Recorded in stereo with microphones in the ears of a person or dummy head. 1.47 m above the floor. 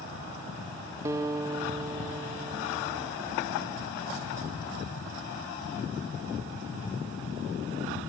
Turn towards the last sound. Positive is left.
turn(degrees=-20)  # may be behind; listen again after turning